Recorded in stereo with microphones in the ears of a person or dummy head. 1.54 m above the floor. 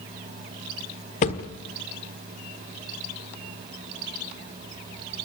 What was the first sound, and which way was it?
A thud, 35° left (ahead or behind).